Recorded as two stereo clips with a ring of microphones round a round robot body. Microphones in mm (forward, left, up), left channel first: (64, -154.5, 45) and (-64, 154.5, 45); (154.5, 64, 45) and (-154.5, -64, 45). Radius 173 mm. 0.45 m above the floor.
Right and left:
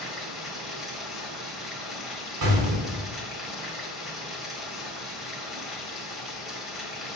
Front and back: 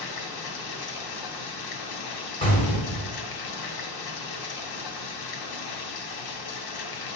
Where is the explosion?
95° left, 3.5 m.